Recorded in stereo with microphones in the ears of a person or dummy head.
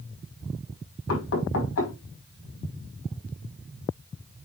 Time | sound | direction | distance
1.1 | knocking | 85° left | 5.5 m